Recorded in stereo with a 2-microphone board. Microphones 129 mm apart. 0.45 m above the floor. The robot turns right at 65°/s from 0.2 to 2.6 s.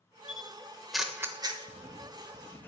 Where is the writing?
45° right, 0.6 m; by 2.7 s 15° left, 0.6 m.